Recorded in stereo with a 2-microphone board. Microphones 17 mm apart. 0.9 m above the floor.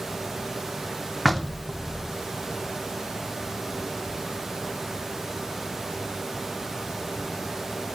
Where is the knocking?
Centre (ahead or behind), 2.5 m.